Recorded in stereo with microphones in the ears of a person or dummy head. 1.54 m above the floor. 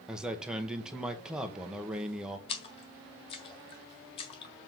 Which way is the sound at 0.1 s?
5° right (ahead or behind).